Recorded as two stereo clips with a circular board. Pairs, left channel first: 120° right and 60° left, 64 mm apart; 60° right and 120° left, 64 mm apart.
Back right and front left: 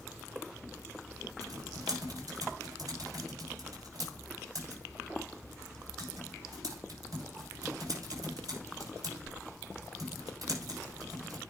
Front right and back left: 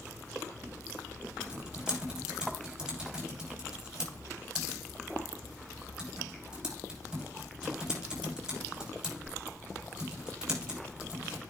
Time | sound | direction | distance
1.4 | typing on a keyboard | 40° left | 7 m